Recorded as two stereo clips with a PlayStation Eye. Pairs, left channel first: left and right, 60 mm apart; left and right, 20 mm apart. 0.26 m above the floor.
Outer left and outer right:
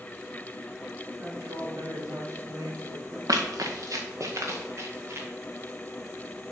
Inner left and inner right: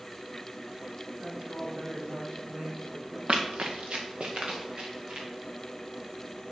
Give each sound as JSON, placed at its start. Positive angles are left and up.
{"t": 1.2, "sound": "a woman speaking", "side_deg": -55, "distance_m": 3.0}
{"t": 3.3, "sound": "running footsteps", "side_deg": -80, "distance_m": 1.2}